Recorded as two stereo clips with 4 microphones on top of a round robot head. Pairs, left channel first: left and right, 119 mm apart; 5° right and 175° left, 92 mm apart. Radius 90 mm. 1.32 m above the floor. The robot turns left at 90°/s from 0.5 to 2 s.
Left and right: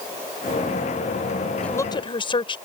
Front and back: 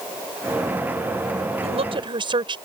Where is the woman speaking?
170° left; by 2.6 s 140° left.